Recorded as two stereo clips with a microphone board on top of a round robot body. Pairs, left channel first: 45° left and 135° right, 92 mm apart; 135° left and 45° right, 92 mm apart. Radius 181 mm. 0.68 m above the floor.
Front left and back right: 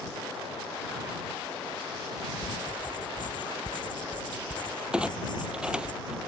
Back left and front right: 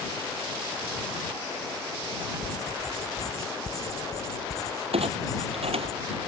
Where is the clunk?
55° right.